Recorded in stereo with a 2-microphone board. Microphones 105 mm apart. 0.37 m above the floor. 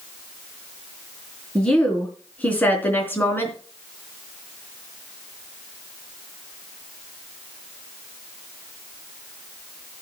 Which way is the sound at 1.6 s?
5° left (ahead or behind).